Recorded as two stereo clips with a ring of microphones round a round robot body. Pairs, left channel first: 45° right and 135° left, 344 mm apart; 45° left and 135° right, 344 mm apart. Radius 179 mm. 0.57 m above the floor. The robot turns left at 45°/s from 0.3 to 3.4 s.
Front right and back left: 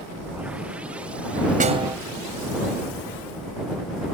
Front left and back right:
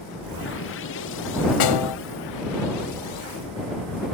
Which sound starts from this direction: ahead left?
A snare drum, at 1.6 s.